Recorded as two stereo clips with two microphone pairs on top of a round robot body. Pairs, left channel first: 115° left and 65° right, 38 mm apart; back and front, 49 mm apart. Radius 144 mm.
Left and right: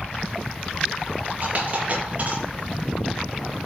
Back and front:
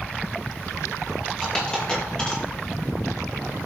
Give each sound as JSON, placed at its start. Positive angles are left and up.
{"t": 1.4, "sound": "a dropped coin", "azimuth_deg": -110, "distance_m": 7.5}